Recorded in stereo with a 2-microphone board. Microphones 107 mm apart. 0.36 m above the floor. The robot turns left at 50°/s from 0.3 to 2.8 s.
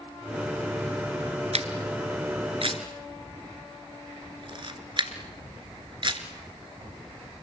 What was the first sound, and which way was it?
A camera shutter, 70° right (ahead or behind).